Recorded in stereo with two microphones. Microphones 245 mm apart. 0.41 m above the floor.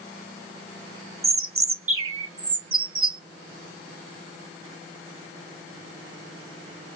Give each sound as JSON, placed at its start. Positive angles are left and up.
{"t": 1.2, "sound": "a bird", "side_deg": -60, "distance_m": 0.7}